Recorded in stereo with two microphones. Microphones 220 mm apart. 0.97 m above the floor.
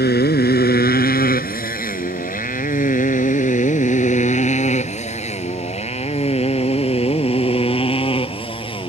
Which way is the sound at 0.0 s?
50° left (ahead or behind).